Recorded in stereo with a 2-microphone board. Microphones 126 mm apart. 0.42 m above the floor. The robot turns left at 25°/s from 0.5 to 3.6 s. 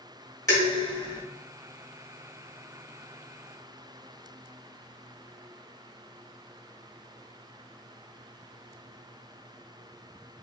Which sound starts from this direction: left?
Dishes clattering, at 0.5 s.